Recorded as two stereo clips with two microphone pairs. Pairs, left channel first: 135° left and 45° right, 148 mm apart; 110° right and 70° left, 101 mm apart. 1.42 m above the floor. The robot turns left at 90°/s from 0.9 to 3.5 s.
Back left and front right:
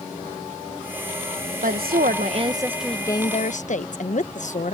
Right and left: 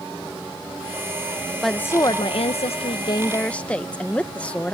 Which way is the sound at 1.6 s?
20° right.